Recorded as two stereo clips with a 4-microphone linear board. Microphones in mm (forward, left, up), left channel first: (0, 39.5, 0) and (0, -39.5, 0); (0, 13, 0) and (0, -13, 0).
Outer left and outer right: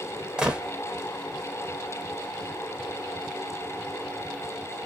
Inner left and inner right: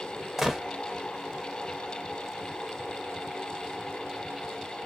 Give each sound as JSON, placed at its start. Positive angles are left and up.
{"t": 0.4, "sound": "a gunshot", "side_deg": -10, "distance_m": 0.8}